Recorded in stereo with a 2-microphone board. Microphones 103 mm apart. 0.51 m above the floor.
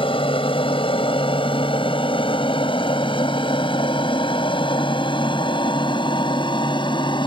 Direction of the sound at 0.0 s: 55° left (ahead or behind).